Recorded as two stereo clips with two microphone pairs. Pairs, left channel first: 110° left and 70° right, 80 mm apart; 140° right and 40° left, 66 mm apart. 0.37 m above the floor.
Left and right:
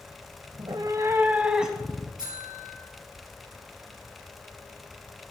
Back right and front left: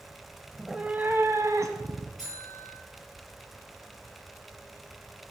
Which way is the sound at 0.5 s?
60° right.